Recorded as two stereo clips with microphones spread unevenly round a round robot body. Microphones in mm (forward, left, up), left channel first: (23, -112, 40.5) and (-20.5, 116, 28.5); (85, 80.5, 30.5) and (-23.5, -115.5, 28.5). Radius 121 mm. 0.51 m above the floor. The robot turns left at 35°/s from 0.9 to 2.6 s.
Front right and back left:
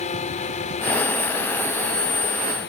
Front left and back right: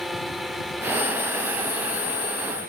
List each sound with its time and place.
0.0 s a drone: 30° right; by 2.7 s 90° right